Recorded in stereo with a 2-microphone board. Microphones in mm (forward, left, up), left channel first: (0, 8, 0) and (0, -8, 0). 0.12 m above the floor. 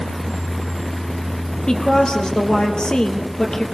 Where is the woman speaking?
65° left (ahead or behind), 3 m.